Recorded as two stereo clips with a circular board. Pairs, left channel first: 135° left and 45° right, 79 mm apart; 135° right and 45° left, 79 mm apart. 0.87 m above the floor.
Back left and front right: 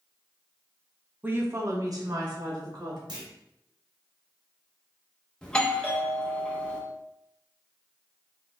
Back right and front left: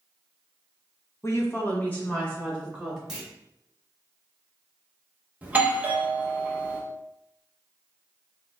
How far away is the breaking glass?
No breaking glass in this recording.